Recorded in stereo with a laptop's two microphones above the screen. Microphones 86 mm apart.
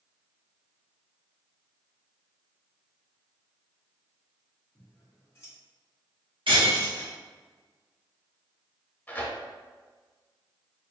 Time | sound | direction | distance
4.8 | scissors | 30° left (ahead or behind) | 1.8 m
6.5 | breaking glass | 80° right | 1.2 m
9.1 | tearing paper | 20° left (ahead or behind) | 0.9 m